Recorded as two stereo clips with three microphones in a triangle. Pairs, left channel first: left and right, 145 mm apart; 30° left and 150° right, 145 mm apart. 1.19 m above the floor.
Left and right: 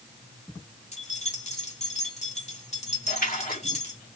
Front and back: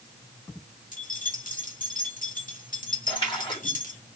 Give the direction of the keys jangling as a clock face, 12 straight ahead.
10 o'clock.